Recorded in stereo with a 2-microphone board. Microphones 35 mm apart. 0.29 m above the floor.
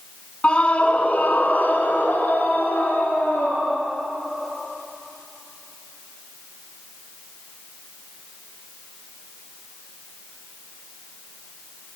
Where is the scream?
35° left (ahead or behind), 2.5 m; by 3.9 s 80° left, 5 m.